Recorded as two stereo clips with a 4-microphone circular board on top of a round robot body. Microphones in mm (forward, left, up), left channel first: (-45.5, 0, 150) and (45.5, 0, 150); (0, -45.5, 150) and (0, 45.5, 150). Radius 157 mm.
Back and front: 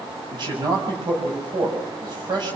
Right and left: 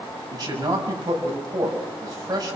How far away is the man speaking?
About 6.5 m.